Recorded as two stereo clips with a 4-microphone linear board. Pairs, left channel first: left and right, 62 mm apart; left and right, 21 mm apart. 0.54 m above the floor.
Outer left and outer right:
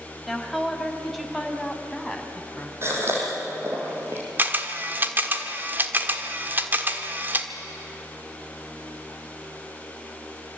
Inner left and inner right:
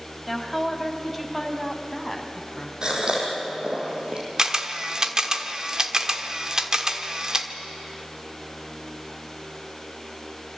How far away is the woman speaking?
About 2.5 m.